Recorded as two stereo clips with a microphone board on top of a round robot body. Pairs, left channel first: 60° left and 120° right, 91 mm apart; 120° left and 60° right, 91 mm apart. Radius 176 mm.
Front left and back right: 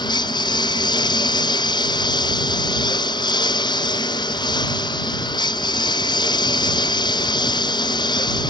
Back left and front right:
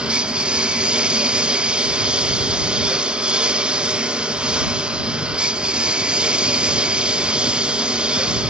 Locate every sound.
0.0 s a lawn mower: 20° left